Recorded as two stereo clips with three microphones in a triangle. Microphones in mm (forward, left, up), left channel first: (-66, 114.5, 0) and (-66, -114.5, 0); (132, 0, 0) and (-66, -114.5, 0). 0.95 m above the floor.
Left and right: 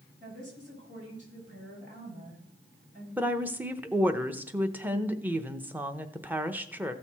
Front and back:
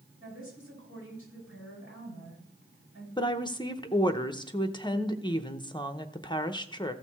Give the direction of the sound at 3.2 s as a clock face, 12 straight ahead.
1 o'clock.